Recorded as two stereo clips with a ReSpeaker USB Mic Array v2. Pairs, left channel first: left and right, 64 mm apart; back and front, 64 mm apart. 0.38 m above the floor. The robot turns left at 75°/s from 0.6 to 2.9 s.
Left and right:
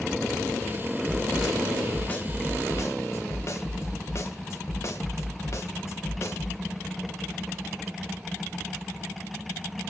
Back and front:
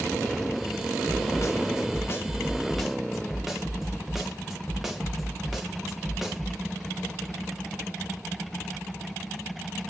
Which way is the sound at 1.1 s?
140° right.